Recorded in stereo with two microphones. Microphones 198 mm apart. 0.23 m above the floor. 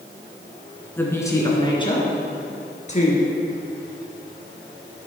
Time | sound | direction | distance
1.0 | a woman speaking | 10° left (ahead or behind) | 2.5 m